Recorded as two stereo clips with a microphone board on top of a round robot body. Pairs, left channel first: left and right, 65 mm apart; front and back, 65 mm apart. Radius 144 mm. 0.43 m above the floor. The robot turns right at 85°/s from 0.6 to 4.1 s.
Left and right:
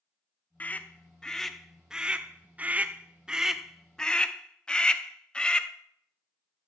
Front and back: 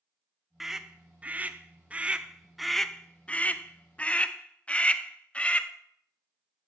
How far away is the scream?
About 0.7 m.